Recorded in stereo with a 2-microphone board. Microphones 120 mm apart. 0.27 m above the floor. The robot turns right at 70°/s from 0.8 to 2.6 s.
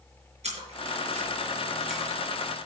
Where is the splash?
70° right (ahead or behind), 4.5 m; by 2.2 s 15° left (ahead or behind), 4.5 m.